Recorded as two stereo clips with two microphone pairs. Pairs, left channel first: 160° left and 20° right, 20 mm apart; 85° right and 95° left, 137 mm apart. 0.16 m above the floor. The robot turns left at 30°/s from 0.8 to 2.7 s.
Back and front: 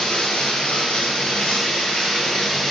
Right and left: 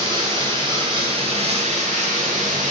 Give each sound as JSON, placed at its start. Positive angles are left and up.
{"t": 0.0, "sound": "running water", "azimuth_deg": 150, "distance_m": 1.1}